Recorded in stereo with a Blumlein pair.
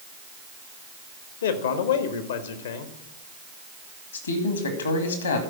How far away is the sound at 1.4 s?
About 1.2 m.